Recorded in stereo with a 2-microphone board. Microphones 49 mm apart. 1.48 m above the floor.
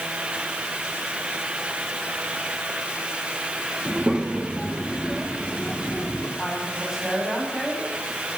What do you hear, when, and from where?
3.9 s a child speaking: 20° right (ahead or behind), 1.8 m; by 6.3 s 15° left (ahead or behind), 3 m
6.4 s a woman speaking: 5° right (ahead or behind), 9.5 m